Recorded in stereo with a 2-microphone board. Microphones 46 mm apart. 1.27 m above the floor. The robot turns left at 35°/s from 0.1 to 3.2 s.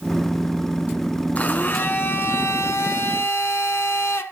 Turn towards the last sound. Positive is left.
turn(degrees=80)